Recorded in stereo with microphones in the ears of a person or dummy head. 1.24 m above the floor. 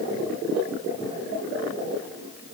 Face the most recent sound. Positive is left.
No sound to turn to.